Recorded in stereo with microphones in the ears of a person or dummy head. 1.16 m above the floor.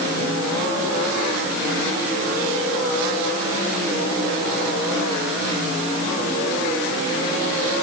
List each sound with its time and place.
Only background noise.